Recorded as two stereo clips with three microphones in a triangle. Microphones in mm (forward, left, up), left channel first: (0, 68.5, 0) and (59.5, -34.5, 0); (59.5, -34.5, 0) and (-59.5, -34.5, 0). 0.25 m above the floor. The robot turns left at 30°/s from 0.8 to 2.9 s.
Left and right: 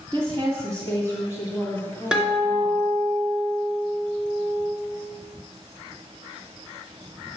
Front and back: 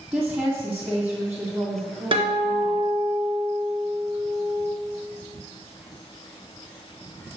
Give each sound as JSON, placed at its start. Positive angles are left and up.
{"t": 0.1, "sound": "a woman speaking", "azimuth_deg": -105, "distance_m": 2.0}
{"t": 2.1, "sound": "a guitar", "azimuth_deg": -140, "distance_m": 2.5}